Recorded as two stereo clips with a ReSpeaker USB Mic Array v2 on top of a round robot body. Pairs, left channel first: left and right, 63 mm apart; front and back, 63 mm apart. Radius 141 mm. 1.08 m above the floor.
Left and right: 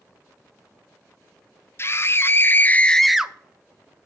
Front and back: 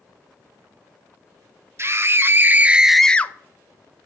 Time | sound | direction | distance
1.8 | a scream | 135° left | 1.1 m